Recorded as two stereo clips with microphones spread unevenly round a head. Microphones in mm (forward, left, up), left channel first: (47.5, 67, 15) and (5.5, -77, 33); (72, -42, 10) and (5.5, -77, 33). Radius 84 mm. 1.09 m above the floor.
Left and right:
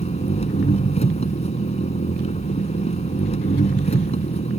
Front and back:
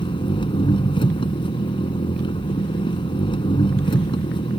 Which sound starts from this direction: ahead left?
An engine running, at 0.0 s.